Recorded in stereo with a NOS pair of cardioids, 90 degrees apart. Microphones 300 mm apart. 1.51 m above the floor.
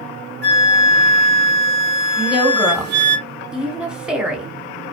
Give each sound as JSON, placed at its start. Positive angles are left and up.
{"t": 0.4, "sound": "a flute", "azimuth_deg": -35, "distance_m": 0.6}
{"t": 2.2, "sound": "a woman speaking", "azimuth_deg": -5, "distance_m": 1.0}